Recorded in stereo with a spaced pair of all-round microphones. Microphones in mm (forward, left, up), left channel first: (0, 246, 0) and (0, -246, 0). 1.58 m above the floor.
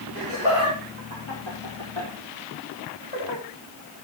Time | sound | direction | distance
0.1 | laughter | 60° left (ahead or behind) | 5 m